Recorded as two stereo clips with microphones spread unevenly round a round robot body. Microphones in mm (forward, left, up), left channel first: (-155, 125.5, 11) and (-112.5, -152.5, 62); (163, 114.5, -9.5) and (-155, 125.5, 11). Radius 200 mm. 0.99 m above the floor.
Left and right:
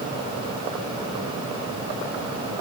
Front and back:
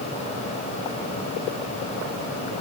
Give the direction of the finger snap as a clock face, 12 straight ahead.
No finger snap in this recording.